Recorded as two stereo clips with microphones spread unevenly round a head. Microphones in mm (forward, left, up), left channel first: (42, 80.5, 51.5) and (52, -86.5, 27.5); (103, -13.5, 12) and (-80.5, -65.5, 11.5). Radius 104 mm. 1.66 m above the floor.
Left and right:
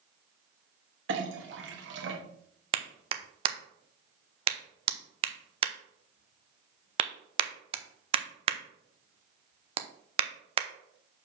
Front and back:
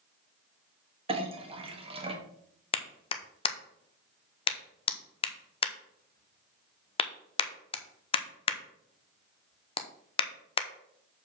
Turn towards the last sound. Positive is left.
turn(degrees=-35)